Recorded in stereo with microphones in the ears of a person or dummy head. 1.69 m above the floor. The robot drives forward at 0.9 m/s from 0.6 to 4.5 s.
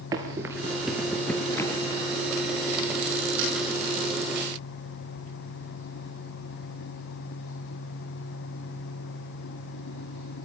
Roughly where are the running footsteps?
Centre.